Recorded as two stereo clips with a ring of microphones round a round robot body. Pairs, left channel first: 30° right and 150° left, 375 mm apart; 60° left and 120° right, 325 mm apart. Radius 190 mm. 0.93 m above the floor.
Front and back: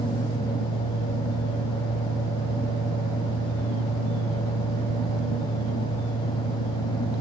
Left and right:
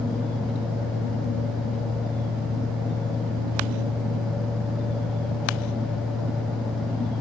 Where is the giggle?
No giggle in this recording.